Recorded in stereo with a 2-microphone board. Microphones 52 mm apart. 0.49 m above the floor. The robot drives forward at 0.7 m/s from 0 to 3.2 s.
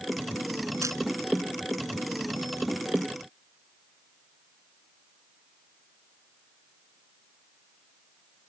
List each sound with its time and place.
0.8 s a camera shutter: 85° right